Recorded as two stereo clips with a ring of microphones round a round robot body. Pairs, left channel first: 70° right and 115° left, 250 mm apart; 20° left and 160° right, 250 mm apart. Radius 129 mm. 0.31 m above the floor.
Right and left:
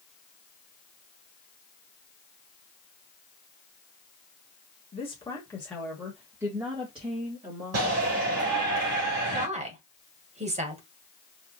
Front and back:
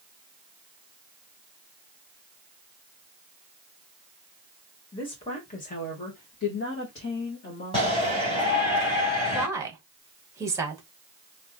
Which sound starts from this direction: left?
A shout, at 7.7 s.